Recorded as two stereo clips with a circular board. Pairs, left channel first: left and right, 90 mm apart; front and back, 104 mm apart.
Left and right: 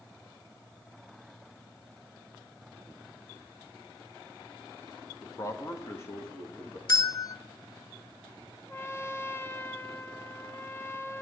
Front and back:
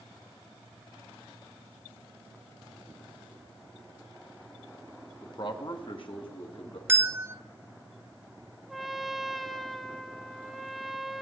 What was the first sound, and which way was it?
A man speaking, 45° left.